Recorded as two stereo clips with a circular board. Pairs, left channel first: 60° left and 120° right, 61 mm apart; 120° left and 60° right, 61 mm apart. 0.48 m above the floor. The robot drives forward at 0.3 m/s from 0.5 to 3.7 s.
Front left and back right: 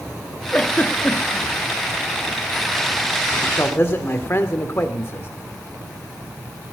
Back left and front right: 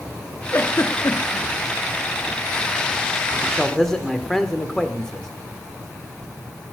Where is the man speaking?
35° left, 1.4 m; by 5.3 s 40° left, 1.3 m.